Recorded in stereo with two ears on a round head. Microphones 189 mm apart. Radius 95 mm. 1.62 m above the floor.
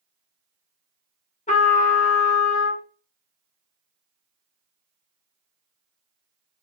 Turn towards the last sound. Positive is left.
turn(degrees=35)  # may be behind; listen again after turning